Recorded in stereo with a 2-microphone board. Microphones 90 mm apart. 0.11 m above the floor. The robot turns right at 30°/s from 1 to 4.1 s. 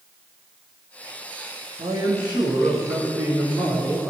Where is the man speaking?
80° right, 6.5 m; by 4.1 s 10° right, 6.5 m.